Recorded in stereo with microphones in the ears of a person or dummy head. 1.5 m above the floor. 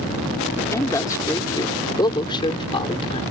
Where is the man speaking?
10° left (ahead or behind); by 3.2 s 25° left (ahead or behind).